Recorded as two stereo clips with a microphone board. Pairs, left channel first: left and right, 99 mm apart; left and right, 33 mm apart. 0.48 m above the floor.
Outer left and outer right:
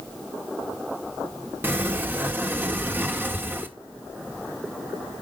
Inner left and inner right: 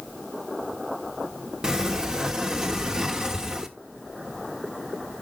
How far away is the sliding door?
About 1.2 m.